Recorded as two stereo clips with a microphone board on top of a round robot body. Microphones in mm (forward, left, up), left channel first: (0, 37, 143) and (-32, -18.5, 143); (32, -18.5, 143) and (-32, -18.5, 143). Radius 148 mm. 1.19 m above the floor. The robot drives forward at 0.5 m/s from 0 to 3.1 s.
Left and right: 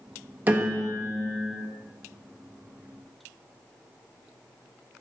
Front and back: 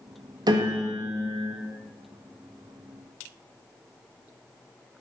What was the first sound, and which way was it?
A piano, straight behind.